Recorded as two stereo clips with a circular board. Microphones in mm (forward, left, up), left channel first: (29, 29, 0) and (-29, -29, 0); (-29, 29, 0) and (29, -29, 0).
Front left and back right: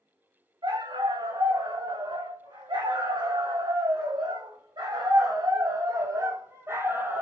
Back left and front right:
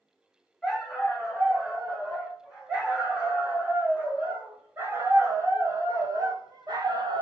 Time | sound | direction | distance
0.6 | a dog barking | 130° right | 5 m